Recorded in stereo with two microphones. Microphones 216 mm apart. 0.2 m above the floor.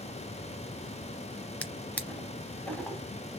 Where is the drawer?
5° left (ahead or behind), 0.7 m.